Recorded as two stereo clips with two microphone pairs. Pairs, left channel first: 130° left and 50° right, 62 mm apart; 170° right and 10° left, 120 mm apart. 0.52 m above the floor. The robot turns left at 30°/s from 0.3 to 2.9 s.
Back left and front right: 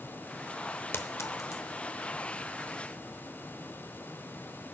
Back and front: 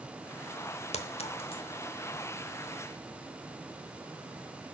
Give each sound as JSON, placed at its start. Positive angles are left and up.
{"t": 0.9, "sound": "a clink", "azimuth_deg": 175, "distance_m": 0.8}